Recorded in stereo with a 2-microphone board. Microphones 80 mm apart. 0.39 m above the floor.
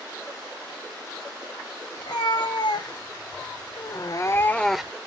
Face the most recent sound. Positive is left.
turn(degrees=-10)  # may be behind; listen again after turning